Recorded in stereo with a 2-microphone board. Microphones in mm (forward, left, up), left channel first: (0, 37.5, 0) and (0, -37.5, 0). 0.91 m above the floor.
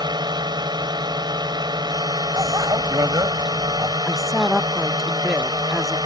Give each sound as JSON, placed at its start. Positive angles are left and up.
{"t": 0.0, "sound": "a drone", "side_deg": -70}
{"t": 2.4, "sound": "a bicycle bell", "side_deg": -55}
{"t": 4.0, "sound": "a woman speaking", "side_deg": -5}